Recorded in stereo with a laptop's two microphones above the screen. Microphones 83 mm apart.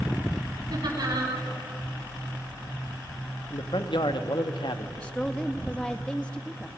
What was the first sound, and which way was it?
Laughter, 55° right (ahead or behind).